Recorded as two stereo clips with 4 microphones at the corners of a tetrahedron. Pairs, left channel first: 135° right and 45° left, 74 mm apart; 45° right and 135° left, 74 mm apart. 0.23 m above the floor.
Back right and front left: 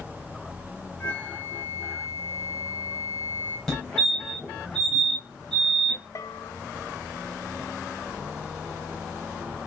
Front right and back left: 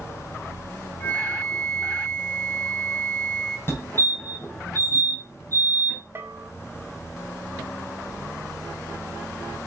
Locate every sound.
1.0 s a flute: 100° right, 1.6 m
3.7 s a fire alarm: 65° right, 2.5 m
6.2 s a bell: 170° right, 0.8 m